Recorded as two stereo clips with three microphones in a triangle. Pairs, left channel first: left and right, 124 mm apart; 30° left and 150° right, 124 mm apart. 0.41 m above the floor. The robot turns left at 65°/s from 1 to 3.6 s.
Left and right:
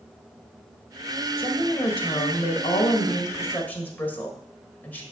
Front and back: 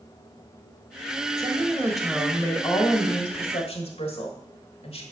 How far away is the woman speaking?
About 1.4 m.